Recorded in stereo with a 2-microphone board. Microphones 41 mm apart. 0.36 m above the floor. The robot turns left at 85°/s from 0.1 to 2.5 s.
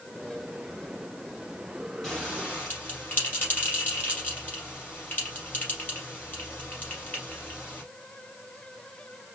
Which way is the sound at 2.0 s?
Centre (ahead or behind).